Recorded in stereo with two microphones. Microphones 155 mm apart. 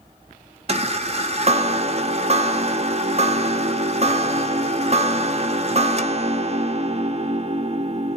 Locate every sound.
0.7 s a chime: 45° right (ahead or behind), 0.5 m